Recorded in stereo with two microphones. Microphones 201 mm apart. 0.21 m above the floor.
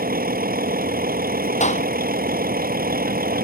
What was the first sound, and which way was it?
A vehicle, 45° right (ahead or behind).